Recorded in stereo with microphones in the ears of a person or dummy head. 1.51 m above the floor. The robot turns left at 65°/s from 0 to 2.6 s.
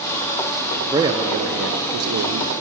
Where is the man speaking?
10° right, 0.7 m; by 2.5 s 115° right, 0.7 m.